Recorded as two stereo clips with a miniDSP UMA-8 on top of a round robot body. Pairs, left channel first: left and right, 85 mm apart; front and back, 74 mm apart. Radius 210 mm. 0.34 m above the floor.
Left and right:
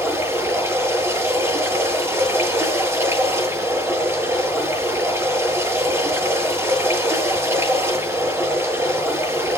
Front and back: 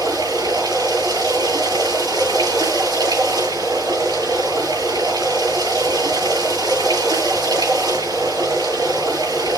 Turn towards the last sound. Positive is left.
turn(degrees=-150)